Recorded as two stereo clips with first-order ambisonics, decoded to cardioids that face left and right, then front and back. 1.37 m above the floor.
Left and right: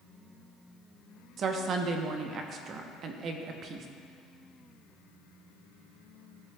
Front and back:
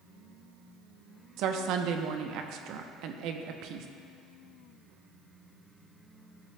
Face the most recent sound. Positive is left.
turn(degrees=-145)